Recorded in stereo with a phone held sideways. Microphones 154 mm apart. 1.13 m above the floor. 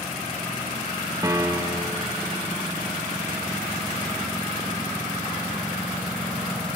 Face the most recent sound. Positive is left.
turn(degrees=-25)  # may be behind; listen again after turning